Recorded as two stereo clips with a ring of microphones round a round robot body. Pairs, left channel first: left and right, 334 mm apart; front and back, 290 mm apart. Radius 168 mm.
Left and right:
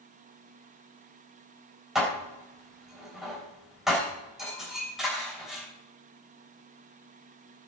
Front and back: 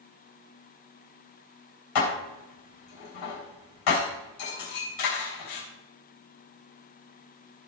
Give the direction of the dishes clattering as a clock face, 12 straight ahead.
12 o'clock.